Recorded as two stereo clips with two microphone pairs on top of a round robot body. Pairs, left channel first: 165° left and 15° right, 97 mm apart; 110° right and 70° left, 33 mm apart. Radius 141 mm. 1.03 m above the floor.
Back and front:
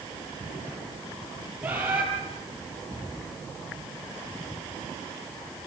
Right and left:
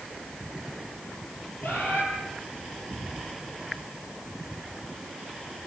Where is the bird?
90° right, 5.5 m.